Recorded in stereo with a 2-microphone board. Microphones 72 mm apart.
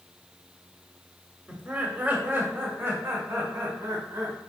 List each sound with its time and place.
1.5 s laughter: 15° right (ahead or behind), 1.6 m; by 4.4 s 50° right (ahead or behind), 2.5 m